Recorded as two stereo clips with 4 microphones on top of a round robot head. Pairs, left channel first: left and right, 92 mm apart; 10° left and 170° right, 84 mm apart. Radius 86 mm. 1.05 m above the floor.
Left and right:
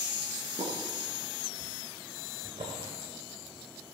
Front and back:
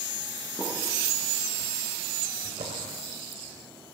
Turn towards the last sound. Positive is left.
turn(degrees=-140)